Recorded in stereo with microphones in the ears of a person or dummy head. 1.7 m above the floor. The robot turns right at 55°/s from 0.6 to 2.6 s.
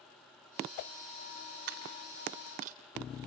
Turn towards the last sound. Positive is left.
turn(degrees=-45)  # may be behind; listen again after turning